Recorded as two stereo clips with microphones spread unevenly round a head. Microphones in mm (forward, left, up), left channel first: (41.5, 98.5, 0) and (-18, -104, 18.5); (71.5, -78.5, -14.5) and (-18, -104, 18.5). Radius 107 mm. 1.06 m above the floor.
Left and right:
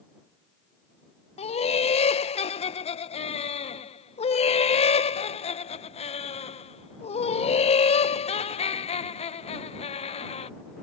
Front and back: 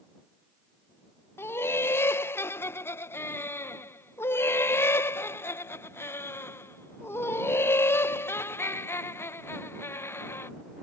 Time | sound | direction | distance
1.4 | laughter | 35° left | ?